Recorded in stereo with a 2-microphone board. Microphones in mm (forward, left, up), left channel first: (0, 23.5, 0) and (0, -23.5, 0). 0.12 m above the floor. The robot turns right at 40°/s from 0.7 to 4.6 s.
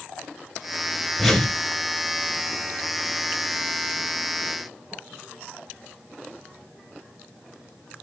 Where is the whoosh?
Centre (ahead or behind), 1.4 m; by 1.6 s 10° left (ahead or behind), 1.4 m.